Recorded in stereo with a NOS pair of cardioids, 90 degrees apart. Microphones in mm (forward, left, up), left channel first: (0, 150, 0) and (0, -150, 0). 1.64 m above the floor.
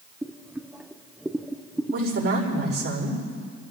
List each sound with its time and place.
0.2 s boiling: 5° right, 0.9 m
1.9 s a woman speaking: 50° right, 5.5 m